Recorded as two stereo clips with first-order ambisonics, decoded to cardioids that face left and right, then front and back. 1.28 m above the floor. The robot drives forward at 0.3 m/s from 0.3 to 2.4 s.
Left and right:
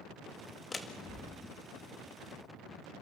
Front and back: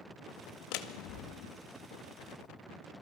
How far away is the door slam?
About 1.8 m.